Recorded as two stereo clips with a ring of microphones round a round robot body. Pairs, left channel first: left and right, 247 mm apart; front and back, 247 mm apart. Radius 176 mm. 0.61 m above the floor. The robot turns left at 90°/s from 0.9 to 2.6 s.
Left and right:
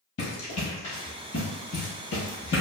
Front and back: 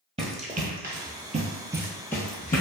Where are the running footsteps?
115° left, 1.0 m; by 2.6 s 50° left, 1.2 m.